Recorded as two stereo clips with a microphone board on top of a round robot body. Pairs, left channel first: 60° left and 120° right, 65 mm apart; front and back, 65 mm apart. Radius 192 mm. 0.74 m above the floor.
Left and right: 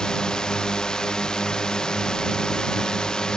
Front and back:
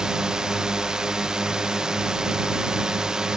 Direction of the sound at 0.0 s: 115° left.